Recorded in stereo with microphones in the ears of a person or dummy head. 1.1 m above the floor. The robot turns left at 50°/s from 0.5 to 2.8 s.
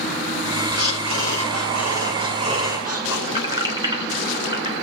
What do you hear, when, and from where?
0.7 s breathing: 55° right, 5.5 m; by 3.2 s 160° right, 5.5 m
3.3 s keys jangling: 30° right (ahead or behind), 3 m